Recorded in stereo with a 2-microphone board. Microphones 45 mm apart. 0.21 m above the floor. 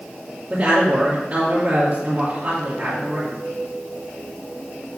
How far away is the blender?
No blender in this recording.